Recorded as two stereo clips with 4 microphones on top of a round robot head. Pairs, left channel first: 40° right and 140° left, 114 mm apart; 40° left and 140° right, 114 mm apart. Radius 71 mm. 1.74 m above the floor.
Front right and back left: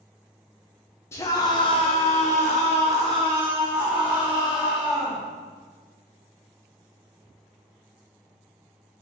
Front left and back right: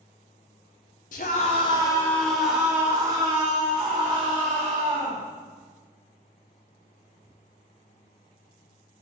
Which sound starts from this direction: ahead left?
A scream, at 1.1 s.